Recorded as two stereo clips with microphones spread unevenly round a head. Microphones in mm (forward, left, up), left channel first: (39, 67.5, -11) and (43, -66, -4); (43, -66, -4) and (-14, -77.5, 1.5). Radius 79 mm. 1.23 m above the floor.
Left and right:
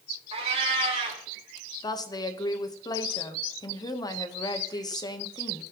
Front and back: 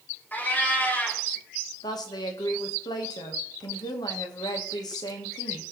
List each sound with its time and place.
0.3 s a cat meowing: 50° right, 2.5 m
1.8 s a woman speaking: 30° left, 1.1 m